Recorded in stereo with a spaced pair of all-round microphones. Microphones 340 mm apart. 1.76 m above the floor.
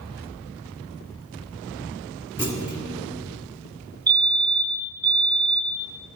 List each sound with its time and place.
2.4 s a clunk: 5° left (ahead or behind), 1.5 m
4.1 s a fire alarm: 30° right (ahead or behind), 1.0 m